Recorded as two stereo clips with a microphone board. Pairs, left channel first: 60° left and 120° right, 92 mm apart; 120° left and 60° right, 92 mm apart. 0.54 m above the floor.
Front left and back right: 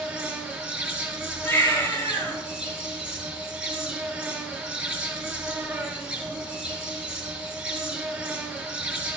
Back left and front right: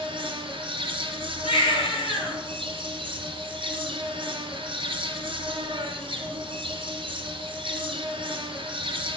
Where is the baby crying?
125° left, 1.9 m.